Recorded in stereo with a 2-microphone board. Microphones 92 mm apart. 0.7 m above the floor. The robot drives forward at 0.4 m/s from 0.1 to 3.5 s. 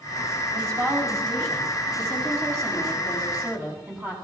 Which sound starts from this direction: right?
A woman speaking, at 0.5 s.